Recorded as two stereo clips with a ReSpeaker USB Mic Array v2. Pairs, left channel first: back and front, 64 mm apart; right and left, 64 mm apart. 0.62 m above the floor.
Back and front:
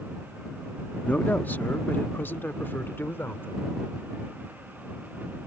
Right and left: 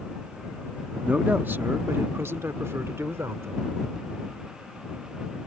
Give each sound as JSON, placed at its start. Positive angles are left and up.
{"t": 1.0, "sound": "a man speaking", "azimuth_deg": 140}